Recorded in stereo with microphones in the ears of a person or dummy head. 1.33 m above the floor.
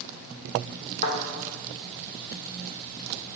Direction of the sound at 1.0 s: 35° left (ahead or behind).